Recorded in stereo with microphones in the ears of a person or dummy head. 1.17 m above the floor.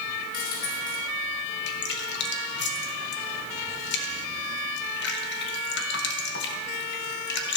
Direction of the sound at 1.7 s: 55° left (ahead or behind).